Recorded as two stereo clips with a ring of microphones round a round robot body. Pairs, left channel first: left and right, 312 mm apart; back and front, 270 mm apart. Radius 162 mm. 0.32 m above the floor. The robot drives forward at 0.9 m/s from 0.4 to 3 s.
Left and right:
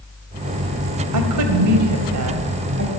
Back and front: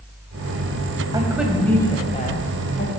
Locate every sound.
1.1 s a woman speaking: 75° right, 1.6 m; by 2.9 s 135° right, 2 m